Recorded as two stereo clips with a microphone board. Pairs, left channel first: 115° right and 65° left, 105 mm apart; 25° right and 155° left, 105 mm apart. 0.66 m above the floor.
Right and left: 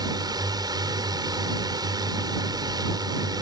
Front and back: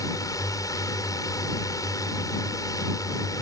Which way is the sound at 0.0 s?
25° left.